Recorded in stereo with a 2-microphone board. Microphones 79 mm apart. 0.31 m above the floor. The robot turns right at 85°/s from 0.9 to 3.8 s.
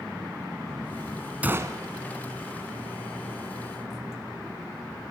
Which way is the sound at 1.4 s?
160° right.